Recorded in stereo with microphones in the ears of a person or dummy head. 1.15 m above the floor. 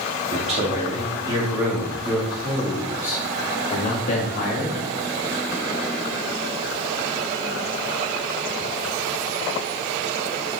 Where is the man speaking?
35° right (ahead or behind), 2 m; by 4.8 s 50° left (ahead or behind), 1.7 m.